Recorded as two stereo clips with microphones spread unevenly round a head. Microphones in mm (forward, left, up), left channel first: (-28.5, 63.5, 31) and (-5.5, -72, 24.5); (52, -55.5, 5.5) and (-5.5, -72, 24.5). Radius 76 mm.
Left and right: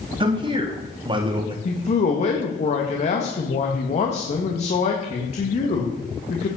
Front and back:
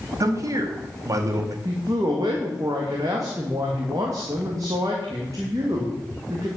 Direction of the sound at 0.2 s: 135° right.